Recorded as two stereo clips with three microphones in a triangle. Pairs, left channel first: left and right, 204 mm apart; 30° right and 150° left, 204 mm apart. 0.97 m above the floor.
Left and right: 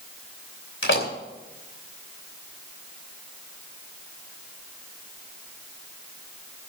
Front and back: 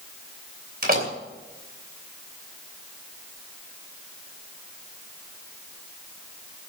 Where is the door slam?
110° left, 3 m.